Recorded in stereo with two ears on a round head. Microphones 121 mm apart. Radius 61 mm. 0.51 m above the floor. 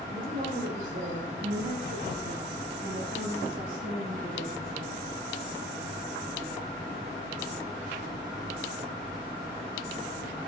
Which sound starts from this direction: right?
A woman speaking, at 0.1 s.